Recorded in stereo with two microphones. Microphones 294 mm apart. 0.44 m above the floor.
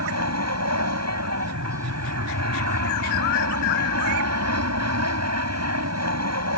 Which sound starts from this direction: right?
An aircraft, at 0.0 s.